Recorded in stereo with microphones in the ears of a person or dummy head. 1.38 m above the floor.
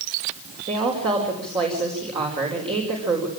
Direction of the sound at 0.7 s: 25° right (ahead or behind).